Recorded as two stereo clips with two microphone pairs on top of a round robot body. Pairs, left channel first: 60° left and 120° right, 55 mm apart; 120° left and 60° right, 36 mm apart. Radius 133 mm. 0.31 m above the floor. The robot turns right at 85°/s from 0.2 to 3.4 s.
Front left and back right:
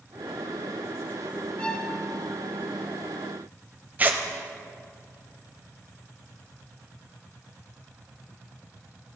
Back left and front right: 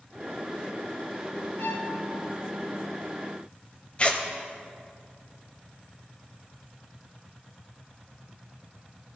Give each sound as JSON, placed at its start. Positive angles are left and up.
{"t": 1.6, "sound": "a violin", "azimuth_deg": 130, "distance_m": 1.1}
{"t": 4.0, "sound": "tearing paper", "azimuth_deg": -175, "distance_m": 1.1}